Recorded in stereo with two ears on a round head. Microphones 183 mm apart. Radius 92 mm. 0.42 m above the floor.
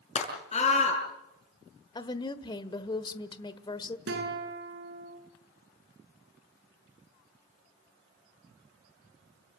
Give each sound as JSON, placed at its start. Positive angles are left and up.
{"t": 0.1, "sound": "a scream", "side_deg": 30, "distance_m": 6.5}
{"t": 1.9, "sound": "a woman speaking", "side_deg": 20, "distance_m": 1.2}
{"t": 4.1, "sound": "a guitar", "side_deg": -55, "distance_m": 7.0}